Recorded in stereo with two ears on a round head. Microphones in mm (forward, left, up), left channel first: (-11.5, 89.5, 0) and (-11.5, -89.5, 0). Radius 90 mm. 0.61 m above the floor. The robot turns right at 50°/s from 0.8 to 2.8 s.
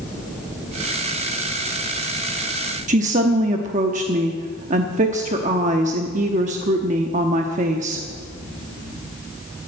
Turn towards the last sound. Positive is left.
turn(degrees=-40)  # may be behind; listen again after turning